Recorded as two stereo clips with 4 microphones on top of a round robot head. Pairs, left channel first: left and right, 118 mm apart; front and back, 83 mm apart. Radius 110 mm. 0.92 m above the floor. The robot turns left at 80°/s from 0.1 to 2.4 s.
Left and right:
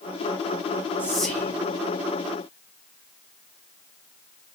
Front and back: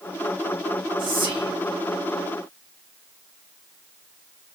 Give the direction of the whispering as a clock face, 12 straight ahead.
5 o'clock.